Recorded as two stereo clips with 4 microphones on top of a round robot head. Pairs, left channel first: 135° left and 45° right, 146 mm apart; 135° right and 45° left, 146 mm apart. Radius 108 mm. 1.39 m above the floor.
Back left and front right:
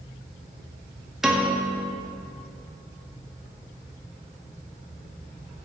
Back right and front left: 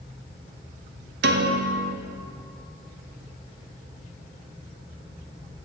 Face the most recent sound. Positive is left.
turn(degrees=40)